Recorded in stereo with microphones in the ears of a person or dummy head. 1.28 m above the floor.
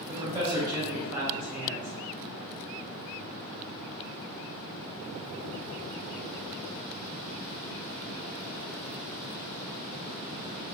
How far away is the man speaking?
About 1.1 m.